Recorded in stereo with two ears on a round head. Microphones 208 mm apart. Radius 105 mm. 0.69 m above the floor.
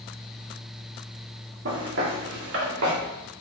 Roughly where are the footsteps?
Right.